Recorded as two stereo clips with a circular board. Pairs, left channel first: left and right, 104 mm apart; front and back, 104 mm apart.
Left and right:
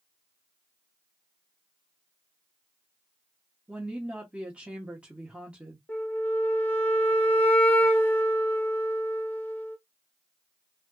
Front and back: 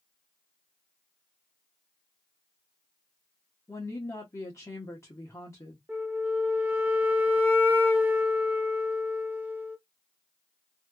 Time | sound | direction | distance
3.7 | a woman speaking | 20° right | 1.0 m
5.9 | a flute | 130° left | 0.8 m